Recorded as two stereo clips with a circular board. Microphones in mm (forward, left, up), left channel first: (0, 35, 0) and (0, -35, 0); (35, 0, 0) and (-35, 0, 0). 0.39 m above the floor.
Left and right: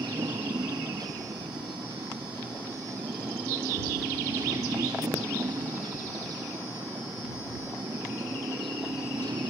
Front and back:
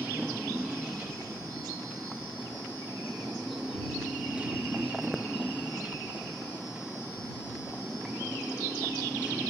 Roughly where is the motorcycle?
Right.